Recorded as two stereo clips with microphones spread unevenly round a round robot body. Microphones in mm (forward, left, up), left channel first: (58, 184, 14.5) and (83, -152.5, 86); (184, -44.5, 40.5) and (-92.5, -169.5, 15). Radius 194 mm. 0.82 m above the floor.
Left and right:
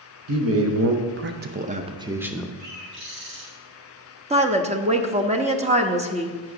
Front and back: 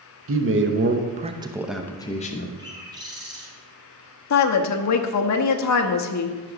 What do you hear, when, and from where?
0.3 s a man speaking: 135° right, 1.1 m; by 2.5 s 35° left, 0.8 m
2.6 s a bird: 80° right, 4 m
4.3 s a woman speaking: 10° right, 1.0 m